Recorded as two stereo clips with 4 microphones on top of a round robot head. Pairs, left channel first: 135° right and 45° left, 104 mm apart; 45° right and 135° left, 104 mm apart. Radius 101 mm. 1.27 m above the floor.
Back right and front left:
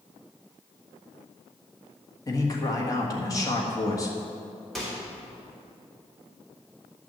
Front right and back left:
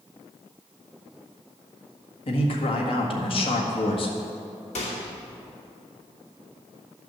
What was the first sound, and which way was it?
A man speaking, 75° right.